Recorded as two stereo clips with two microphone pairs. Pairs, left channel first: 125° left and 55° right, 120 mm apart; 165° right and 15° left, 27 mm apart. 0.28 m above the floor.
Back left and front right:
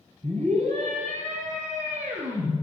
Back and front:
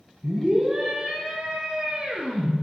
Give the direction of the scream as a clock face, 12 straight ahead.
3 o'clock.